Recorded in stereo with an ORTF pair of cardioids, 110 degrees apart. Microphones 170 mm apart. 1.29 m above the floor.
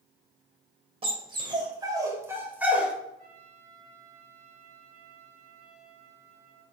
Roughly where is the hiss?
I don't hear a hiss.